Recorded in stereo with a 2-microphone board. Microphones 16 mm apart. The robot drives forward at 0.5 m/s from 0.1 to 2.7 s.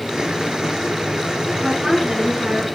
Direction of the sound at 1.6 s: 40° right (ahead or behind).